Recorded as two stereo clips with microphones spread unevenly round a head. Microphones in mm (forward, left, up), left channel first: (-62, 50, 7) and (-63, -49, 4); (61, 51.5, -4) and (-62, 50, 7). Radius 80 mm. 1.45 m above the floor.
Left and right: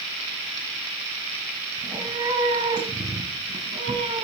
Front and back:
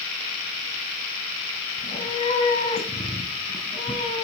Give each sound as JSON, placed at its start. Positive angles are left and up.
{"t": 1.8, "sound": "a cat meowing", "azimuth_deg": -30, "distance_m": 1.7}